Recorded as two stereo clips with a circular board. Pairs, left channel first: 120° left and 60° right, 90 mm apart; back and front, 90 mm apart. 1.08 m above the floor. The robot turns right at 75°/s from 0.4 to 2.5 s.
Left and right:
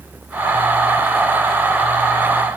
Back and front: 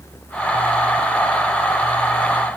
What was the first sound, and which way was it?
Only background noise.